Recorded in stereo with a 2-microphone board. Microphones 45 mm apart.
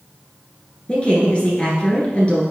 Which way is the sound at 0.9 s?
25° left (ahead or behind).